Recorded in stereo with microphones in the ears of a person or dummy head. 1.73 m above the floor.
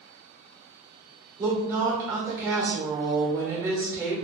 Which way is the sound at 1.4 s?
10° right (ahead or behind).